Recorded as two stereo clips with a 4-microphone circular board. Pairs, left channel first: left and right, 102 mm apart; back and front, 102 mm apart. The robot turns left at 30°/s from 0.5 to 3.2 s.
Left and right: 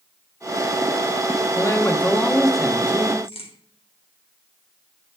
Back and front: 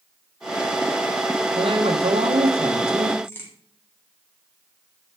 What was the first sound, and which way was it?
A man speaking, 30° left.